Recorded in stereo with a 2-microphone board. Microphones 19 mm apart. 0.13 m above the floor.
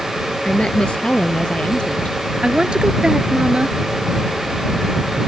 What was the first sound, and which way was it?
A woman speaking, 55° left (ahead or behind).